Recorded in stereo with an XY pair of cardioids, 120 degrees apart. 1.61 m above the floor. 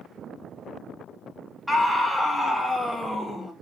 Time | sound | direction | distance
1.7 | a scream | 5° left | 3 m